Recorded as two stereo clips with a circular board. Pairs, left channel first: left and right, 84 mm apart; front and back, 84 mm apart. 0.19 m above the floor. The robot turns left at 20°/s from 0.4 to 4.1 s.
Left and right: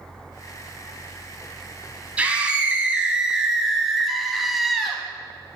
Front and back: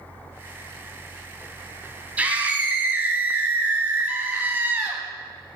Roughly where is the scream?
Behind right.